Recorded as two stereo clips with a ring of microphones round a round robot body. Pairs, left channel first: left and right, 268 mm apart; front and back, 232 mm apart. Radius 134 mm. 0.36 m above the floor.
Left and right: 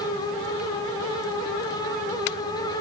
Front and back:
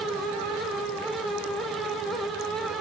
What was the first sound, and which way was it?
Only background noise.